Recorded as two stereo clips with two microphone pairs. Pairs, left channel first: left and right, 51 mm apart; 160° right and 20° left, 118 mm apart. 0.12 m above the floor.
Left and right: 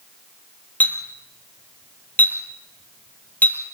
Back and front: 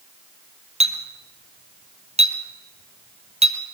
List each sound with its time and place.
0.8 s a clink: 30° left, 1.9 m